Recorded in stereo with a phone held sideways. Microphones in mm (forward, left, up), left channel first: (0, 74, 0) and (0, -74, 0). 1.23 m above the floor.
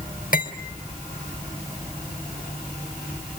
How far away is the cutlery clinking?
About 3 m.